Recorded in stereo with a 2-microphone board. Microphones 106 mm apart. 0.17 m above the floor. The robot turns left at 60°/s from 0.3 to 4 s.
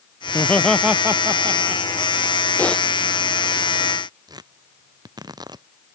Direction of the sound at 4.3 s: 40° right (ahead or behind).